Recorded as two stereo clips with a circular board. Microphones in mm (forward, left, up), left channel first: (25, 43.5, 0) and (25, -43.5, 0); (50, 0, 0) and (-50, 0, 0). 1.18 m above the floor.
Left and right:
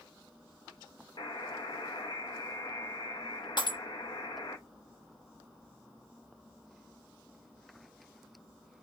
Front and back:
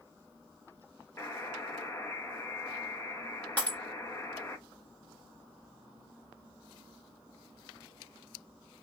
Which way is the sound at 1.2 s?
65° left.